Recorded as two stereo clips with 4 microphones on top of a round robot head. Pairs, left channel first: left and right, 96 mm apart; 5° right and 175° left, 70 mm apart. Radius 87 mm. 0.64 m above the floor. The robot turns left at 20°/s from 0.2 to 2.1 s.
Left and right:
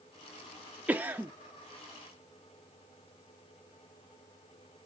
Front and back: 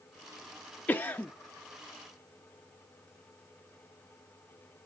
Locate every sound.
0.9 s a cough: 35° right, 0.6 m; by 1.3 s 45° right, 0.6 m